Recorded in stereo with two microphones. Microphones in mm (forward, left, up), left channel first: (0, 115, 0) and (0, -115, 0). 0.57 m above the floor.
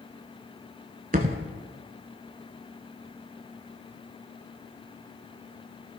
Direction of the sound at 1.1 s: 40° right (ahead or behind).